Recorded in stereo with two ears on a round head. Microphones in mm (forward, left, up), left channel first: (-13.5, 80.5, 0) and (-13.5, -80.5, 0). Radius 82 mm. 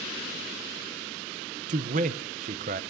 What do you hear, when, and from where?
1.7 s a man speaking: 40° right (ahead or behind), 0.6 m